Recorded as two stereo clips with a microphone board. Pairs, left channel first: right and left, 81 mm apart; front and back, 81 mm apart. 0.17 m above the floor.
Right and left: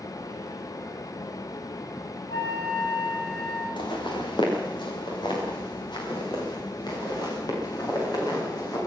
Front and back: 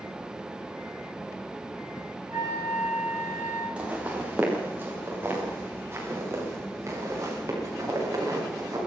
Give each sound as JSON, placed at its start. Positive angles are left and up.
{"t": 2.3, "sound": "a flute", "azimuth_deg": -125, "distance_m": 10.0}
{"t": 3.8, "sound": "footsteps", "azimuth_deg": -105, "distance_m": 7.0}